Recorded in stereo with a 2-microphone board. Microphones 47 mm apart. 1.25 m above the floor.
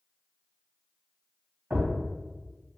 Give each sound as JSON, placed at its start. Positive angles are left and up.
{"t": 1.7, "sound": "a thud", "side_deg": -40, "distance_m": 1.7}